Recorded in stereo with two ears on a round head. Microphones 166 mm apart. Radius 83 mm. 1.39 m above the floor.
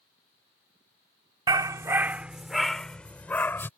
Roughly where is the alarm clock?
No alarm clock in this recording.